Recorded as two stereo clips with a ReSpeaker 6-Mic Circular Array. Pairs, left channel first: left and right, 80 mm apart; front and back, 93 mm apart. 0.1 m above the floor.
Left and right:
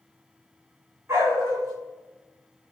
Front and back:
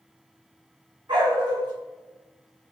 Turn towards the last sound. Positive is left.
turn(degrees=-145)